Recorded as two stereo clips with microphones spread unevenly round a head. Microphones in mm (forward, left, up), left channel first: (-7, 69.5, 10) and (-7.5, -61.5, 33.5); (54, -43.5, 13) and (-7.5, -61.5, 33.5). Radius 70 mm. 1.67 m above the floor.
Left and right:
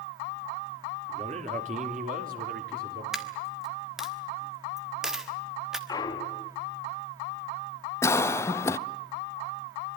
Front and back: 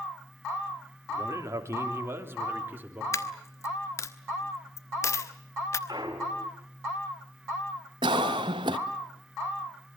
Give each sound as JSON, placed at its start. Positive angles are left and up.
{"t": 1.1, "sound": "a man speaking", "azimuth_deg": -135, "distance_m": 3.0}
{"t": 3.1, "sound": "a dropped coin", "azimuth_deg": -20, "distance_m": 1.3}
{"t": 5.9, "sound": "a clunk", "azimuth_deg": 155, "distance_m": 2.5}
{"t": 8.0, "sound": "a cough", "azimuth_deg": 160, "distance_m": 0.8}